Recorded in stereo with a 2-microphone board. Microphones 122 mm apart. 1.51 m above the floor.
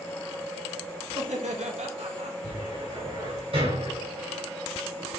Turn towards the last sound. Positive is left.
turn(degrees=-50)  # may be behind; listen again after turning